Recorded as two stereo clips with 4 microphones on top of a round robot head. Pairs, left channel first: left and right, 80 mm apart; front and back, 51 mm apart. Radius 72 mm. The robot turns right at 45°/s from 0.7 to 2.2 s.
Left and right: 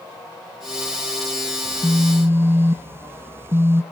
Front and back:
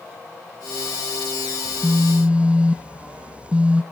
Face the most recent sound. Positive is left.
turn(degrees=-125)